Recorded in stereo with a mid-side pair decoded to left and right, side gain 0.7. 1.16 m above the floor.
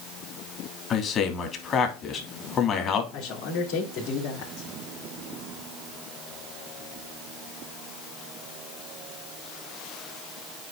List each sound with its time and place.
0.9 s a man speaking: 40° left, 2.5 m
3.1 s a man speaking: 65° left, 3.5 m